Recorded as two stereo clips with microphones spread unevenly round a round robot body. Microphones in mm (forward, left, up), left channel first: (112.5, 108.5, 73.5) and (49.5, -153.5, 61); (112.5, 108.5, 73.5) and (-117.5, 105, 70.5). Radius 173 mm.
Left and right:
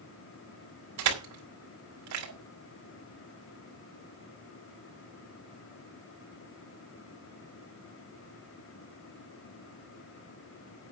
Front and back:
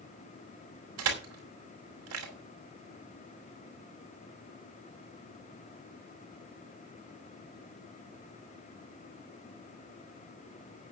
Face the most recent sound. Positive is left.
turn(degrees=-145)